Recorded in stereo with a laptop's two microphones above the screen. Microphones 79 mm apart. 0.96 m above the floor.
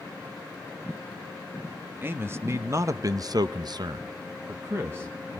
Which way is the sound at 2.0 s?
30° right (ahead or behind).